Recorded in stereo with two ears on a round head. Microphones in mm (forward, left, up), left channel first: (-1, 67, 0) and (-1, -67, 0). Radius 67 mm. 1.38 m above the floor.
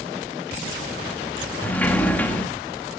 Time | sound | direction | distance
1.6 | a sliding door | 10° left (ahead or behind) | 1.5 m